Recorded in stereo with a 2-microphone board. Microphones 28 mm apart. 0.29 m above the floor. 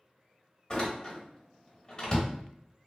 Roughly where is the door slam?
Left.